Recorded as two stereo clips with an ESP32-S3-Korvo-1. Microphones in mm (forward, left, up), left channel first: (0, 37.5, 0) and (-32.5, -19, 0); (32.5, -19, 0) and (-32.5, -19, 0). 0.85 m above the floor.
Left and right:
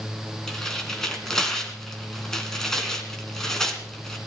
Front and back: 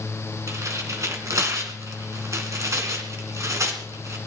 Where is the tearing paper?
140° left, 2.5 m.